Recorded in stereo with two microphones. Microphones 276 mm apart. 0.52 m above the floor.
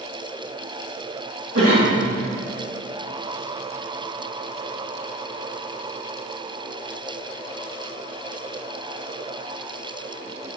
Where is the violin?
I don't hear a violin.